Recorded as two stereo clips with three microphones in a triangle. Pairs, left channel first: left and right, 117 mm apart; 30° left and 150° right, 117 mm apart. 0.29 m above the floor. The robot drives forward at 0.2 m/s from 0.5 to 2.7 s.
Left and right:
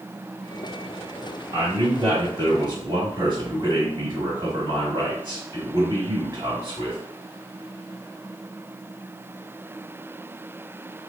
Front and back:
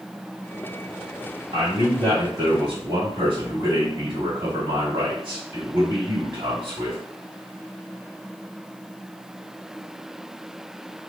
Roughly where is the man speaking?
Right.